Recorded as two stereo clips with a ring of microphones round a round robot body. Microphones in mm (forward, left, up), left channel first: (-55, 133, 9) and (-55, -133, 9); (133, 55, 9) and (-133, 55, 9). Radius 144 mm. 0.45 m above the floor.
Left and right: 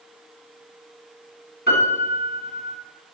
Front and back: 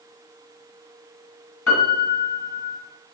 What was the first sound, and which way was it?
A piano, 30° left.